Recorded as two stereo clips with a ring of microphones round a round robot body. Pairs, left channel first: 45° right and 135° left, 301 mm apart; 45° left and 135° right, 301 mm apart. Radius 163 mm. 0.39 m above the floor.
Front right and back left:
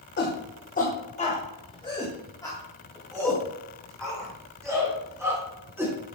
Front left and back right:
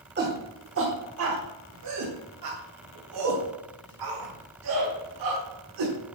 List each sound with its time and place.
0.2 s a shout: 90° right, 1.6 m; by 5.9 s 140° right, 4 m